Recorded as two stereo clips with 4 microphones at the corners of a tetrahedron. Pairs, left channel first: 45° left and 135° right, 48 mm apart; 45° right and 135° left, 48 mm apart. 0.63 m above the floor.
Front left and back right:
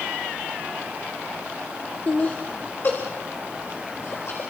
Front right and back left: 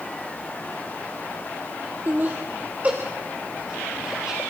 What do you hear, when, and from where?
2.1 s laughter: 95° left, 2 m; by 4.4 s 55° left, 3 m